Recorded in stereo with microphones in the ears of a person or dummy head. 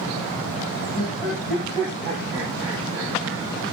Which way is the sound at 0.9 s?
5° right (ahead or behind).